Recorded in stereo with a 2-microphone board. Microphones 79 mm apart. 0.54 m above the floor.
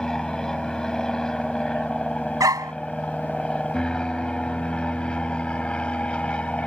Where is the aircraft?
5° left (ahead or behind); by 6.7 s 15° left (ahead or behind).